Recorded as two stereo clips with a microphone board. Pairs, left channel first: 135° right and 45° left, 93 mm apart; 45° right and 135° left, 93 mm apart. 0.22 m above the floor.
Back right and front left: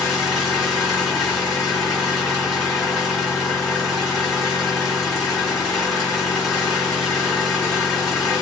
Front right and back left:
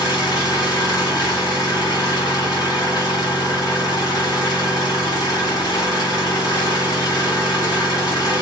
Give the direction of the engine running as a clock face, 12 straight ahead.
2 o'clock.